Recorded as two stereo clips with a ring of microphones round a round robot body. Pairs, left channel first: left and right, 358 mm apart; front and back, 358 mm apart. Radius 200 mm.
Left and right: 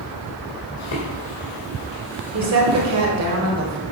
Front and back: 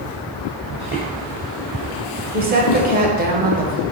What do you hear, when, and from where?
0.8 s footsteps: 100° left, 1.5 m; by 3.0 s 40° right, 1.4 m
2.3 s a woman speaking: 120° right, 1.9 m